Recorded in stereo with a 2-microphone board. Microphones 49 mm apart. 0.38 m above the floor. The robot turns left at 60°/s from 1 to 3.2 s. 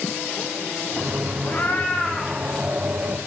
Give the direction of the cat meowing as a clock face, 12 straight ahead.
11 o'clock.